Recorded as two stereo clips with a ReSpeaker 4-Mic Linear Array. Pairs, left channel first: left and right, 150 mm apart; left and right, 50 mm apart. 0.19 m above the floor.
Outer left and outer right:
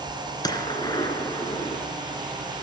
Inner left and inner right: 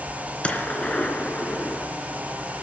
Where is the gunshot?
25° left (ahead or behind), 3 m.